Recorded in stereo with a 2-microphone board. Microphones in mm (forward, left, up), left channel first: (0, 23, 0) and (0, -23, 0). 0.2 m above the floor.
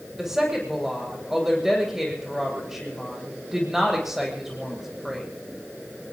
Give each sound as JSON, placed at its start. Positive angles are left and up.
{"t": 0.2, "sound": "a woman speaking", "side_deg": -5, "distance_m": 7.5}